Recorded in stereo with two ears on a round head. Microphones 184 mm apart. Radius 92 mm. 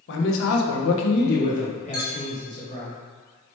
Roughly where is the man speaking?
Left.